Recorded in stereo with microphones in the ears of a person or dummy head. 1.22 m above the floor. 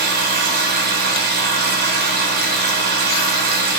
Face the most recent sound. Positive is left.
turn(degrees=-45)  # may be behind; listen again after turning